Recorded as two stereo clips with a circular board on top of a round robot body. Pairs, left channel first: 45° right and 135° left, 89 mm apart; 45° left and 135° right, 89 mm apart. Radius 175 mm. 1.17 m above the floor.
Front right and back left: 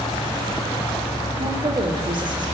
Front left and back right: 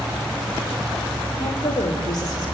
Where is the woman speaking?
100° left, 3 m; by 2.5 s 90° left, 3 m.